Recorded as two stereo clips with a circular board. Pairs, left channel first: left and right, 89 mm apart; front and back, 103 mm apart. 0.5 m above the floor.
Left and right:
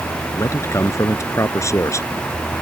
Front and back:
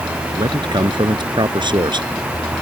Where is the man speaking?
145° left.